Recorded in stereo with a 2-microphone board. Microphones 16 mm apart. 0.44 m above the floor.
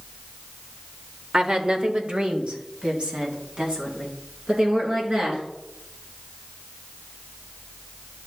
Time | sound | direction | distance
1.3 | a woman speaking | 40° right (ahead or behind) | 1.0 m